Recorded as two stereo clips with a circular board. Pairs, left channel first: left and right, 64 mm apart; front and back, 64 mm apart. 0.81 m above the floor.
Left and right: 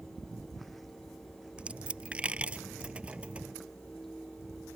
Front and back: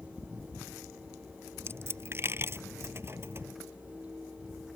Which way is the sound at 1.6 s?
150° right.